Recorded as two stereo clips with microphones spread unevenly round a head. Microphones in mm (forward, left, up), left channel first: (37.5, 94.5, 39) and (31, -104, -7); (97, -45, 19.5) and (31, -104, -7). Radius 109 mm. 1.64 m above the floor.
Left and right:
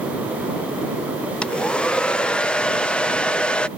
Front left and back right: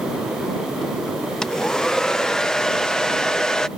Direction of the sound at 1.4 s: 50° left.